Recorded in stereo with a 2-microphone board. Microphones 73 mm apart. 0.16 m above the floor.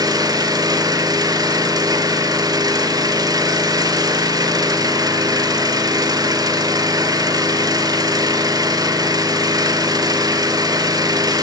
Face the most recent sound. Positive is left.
turn(degrees=-55)  # may be behind; listen again after turning